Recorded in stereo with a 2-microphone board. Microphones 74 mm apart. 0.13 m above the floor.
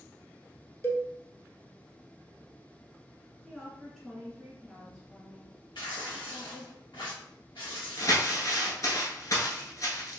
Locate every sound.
0.8 s a cowbell: 35° left (ahead or behind), 0.6 m
3.4 s a woman speaking: 5° right (ahead or behind), 1.8 m
5.8 s tearing paper: 85° left, 1.8 m
8.0 s crumpling: 50° left (ahead or behind), 1.1 m